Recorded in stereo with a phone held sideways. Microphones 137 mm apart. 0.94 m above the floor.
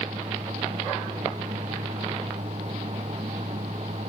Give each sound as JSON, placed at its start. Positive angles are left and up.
{"t": 0.0, "sound": "a fan", "side_deg": -55}